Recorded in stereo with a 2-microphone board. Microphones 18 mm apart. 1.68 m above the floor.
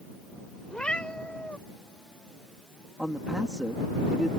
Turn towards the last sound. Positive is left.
turn(degrees=-45)  # may be behind; listen again after turning